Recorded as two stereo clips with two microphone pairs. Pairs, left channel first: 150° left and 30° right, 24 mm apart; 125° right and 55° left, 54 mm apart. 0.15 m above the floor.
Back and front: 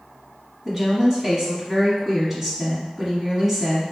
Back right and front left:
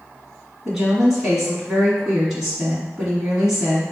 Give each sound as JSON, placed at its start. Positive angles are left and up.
{"t": 0.7, "sound": "a woman speaking", "azimuth_deg": -20, "distance_m": 1.2}